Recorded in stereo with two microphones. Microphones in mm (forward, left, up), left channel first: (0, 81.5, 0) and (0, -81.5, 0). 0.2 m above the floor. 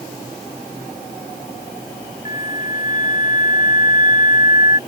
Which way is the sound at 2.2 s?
50° left (ahead or behind).